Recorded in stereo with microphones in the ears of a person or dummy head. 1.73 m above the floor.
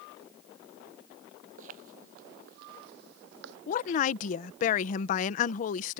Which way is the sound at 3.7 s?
45° left (ahead or behind).